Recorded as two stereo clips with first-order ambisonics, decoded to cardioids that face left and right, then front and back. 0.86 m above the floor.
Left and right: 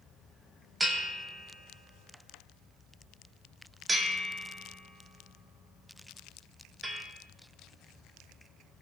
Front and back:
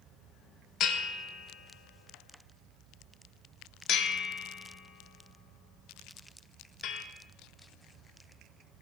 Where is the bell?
10° right, 0.7 m.